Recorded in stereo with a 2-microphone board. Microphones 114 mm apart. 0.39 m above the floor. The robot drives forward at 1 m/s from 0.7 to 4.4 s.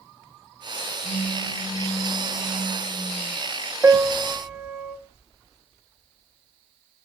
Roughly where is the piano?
Right.